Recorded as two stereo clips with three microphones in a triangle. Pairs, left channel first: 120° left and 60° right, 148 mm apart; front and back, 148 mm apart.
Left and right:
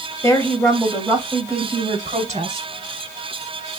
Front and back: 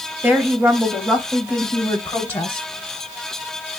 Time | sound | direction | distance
0.2 | a woman speaking | 135° left | 0.9 m